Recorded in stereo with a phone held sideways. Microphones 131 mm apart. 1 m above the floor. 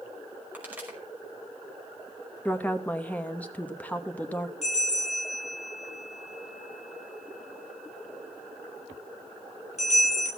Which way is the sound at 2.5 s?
10° left (ahead or behind).